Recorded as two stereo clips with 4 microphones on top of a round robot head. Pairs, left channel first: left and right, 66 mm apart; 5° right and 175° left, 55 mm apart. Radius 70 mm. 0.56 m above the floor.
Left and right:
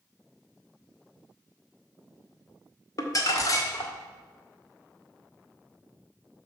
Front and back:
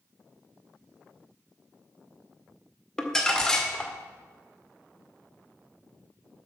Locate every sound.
3.0 s crumpling: 70° left, 1.9 m